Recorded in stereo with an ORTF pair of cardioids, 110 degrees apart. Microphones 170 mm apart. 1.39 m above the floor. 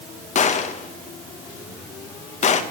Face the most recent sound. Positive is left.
turn(degrees=45)